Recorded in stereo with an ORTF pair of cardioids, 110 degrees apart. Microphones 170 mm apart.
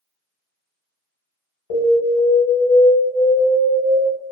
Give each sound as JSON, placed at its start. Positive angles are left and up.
{"t": 1.7, "sound": "an alarm", "azimuth_deg": 60, "distance_m": 1.1}